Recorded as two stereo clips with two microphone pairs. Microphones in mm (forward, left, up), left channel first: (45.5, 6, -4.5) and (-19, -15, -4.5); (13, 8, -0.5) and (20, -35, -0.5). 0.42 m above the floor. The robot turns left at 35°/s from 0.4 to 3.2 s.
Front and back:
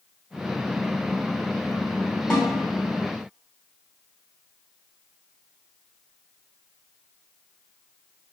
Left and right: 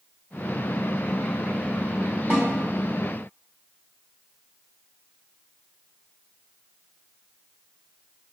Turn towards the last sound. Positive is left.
turn(degrees=-75)